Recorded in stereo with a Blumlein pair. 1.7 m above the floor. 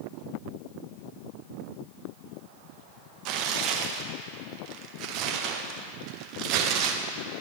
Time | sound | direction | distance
3.2 | tearing paper | 40° right | 0.8 m